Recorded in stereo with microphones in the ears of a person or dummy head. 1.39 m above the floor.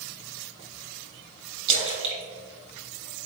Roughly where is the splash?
Right.